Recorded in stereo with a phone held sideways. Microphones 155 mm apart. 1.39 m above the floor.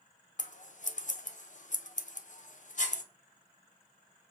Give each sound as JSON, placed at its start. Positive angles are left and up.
{"t": 0.4, "sound": "scissors", "side_deg": 55, "distance_m": 0.8}